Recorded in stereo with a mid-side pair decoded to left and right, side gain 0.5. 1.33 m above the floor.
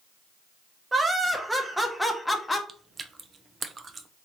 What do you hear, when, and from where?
0.9 s laughter: 25° right, 1.3 m; by 2.6 s 20° left, 0.9 m
2.7 s chewing: 35° right, 0.6 m